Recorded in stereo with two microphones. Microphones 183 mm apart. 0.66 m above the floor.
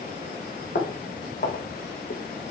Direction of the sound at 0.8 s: 65° left (ahead or behind).